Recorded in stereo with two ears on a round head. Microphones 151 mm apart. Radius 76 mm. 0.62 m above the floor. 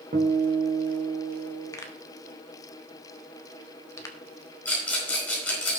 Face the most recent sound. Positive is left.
turn(degrees=10)  # may be behind; listen again after turning